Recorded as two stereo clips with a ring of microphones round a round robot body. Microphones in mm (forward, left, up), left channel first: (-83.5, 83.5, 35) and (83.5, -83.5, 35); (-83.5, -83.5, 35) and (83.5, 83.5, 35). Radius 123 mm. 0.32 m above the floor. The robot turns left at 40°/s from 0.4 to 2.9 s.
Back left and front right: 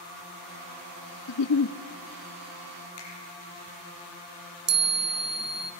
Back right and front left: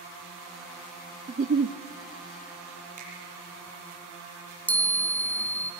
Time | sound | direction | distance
1.3 | a giggle | 115° left | 0.6 m
3.0 | a finger snap | 105° left | 7 m
4.7 | a chime | 55° right | 1.3 m